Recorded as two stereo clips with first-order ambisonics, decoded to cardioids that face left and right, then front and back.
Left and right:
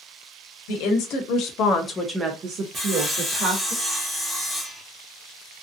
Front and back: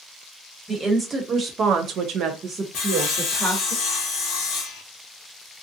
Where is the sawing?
5° right, 1.0 m.